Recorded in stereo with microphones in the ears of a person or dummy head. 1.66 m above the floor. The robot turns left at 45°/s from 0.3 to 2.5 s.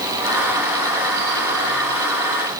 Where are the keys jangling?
No keys jangling in this recording.